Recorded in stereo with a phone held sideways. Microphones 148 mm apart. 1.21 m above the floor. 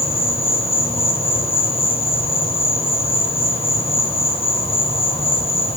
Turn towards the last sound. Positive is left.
turn(degrees=40)  # may be behind; listen again after turning